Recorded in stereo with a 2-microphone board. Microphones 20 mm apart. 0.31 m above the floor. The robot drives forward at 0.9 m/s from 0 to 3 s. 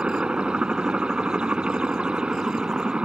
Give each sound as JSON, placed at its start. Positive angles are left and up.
{"t": 0.0, "sound": "a helicopter", "side_deg": -55}